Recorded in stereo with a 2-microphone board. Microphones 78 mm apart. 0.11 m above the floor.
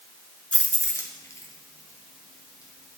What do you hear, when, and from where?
0.5 s keys jangling: 15° left (ahead or behind), 0.9 m; by 3.0 s 50° left (ahead or behind), 3 m